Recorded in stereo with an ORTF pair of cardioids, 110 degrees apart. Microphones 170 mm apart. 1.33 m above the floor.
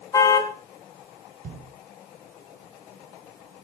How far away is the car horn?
About 6.5 m.